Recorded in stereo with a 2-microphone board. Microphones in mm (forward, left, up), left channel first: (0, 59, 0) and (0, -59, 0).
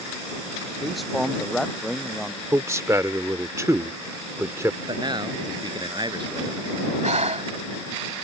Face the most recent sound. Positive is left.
turn(degrees=-70)  # may be behind; listen again after turning